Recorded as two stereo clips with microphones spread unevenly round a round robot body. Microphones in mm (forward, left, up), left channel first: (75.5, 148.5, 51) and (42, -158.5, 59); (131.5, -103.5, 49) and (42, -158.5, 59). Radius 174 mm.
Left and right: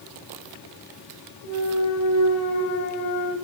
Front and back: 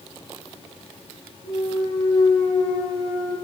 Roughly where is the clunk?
Ahead left.